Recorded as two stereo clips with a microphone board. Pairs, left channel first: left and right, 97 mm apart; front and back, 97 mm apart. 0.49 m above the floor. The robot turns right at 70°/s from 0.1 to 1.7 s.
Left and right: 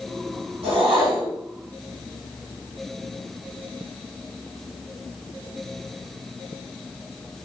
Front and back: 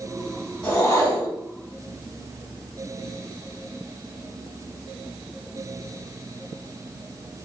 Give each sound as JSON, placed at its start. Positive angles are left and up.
{"t": 0.6, "sound": "a whoosh", "azimuth_deg": -75, "distance_m": 1.2}